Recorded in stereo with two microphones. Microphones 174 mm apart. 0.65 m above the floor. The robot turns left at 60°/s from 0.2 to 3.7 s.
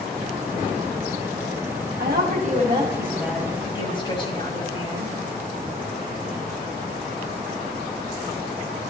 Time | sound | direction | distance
2.0 | a woman speaking | 105° right | 4 m